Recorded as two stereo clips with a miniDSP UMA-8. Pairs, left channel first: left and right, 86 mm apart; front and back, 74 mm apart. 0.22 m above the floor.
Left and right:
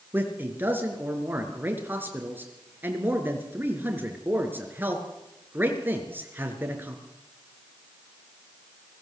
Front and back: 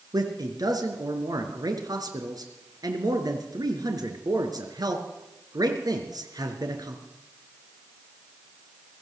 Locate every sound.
0.1 s a man speaking: 155° right, 4 m